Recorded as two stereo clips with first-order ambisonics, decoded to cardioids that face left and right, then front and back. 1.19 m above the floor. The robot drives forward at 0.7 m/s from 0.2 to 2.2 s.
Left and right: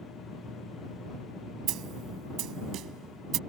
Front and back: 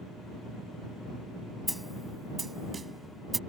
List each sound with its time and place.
1.7 s a snare drum: 90° right; by 3.4 s 110° right